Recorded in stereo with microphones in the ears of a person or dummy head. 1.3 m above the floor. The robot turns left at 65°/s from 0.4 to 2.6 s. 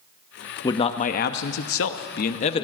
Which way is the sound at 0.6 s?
155° left.